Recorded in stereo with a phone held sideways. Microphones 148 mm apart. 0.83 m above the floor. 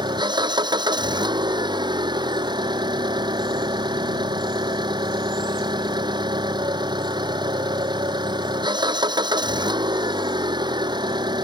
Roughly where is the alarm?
I don't hear an alarm.